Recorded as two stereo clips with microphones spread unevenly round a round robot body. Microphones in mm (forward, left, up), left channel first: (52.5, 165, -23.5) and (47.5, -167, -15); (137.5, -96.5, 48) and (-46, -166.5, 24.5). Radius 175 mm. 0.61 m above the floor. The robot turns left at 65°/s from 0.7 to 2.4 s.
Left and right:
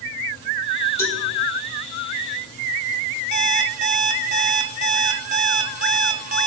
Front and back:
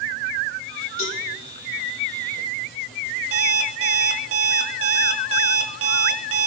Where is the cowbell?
5° left, 4.5 m; by 1.2 s 10° right, 4.5 m.